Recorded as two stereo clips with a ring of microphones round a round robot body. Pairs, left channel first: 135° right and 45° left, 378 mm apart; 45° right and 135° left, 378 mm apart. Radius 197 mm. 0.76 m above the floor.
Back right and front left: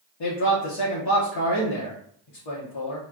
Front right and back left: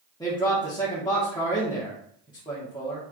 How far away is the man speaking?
About 1.3 m.